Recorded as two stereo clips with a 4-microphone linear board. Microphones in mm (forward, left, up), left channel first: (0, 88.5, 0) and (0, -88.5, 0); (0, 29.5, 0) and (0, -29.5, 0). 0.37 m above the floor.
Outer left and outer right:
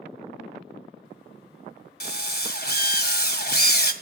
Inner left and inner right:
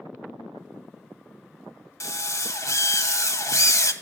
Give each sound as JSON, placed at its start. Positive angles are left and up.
{"t": 2.0, "sound": "a drill", "side_deg": 60, "distance_m": 1.7}